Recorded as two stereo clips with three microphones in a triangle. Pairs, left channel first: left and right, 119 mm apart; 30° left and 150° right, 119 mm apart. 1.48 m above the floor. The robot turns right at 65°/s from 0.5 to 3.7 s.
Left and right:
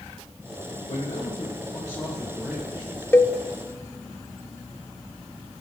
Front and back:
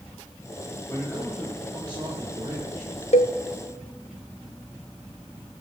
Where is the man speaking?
90° left, 1.7 m; by 3.0 s 130° right, 1.7 m.